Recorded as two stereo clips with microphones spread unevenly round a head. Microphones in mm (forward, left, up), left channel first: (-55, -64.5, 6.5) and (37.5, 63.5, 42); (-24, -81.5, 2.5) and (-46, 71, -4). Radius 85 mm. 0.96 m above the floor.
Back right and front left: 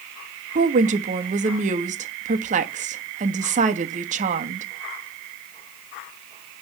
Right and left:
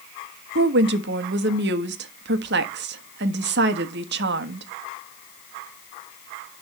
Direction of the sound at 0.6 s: 105° left.